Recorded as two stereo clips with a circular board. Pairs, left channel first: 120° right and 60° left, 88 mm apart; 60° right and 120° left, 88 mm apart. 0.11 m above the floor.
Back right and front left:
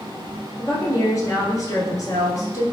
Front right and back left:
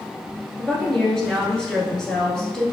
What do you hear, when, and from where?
0.6 s a woman speaking: 135° right, 1.4 m